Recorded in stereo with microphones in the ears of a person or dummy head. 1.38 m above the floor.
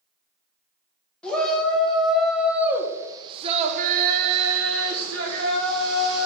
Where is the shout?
5° left (ahead or behind), 1.8 m; by 6.3 s 60° right (ahead or behind), 1.5 m.